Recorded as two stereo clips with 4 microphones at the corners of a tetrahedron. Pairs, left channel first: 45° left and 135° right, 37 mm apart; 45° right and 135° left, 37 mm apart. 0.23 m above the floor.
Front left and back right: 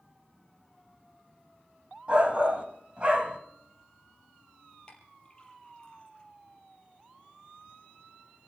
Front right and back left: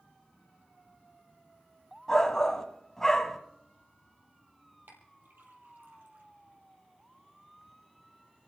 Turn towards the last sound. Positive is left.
turn(degrees=110)